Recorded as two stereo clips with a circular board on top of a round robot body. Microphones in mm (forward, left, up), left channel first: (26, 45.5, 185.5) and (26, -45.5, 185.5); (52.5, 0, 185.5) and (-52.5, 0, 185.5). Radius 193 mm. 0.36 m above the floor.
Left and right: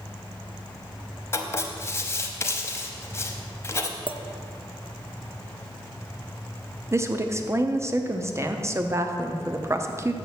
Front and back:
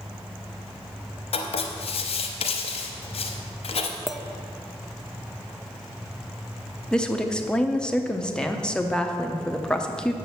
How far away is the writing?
About 0.7 m.